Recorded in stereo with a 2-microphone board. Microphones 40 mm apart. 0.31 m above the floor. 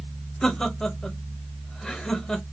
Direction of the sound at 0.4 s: 20° left (ahead or behind).